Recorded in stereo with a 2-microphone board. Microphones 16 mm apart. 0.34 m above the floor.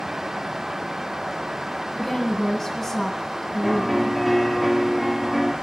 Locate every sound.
1.9 s a woman speaking: 10° left (ahead or behind), 6.5 m
3.6 s a piano: centre (ahead or behind), 3.5 m